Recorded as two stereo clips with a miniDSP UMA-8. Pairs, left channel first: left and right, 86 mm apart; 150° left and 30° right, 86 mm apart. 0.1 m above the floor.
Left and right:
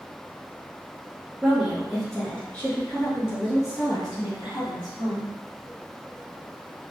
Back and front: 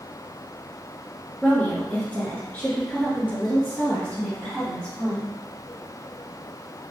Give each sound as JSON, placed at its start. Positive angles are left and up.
{"t": 1.4, "sound": "a woman speaking", "azimuth_deg": -155, "distance_m": 1.3}